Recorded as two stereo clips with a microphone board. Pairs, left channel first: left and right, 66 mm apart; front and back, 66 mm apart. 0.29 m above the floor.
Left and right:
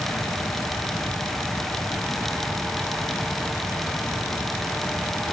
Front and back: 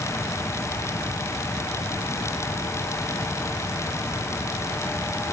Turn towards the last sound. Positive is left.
No sound to turn to.